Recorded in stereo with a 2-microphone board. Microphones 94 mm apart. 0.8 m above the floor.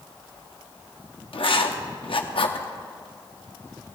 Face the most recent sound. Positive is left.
turn(degrees=70)  # may be behind; listen again after turning